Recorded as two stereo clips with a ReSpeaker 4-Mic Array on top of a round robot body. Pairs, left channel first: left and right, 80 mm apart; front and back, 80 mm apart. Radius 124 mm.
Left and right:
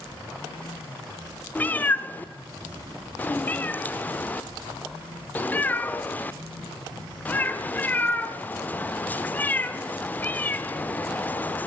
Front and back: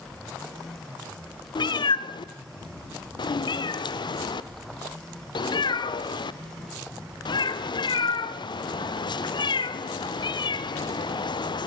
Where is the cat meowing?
20° left, 1.0 m.